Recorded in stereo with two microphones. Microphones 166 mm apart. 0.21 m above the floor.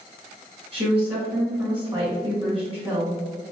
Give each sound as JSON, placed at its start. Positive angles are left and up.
{"t": 0.7, "sound": "a woman speaking", "side_deg": -35, "distance_m": 1.9}